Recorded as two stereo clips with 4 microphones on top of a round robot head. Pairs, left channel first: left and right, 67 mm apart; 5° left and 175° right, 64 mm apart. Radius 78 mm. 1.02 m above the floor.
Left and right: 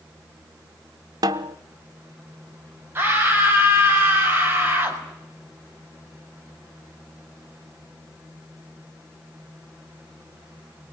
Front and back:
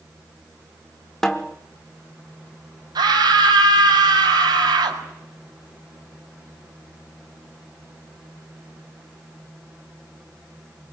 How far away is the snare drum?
About 0.7 m.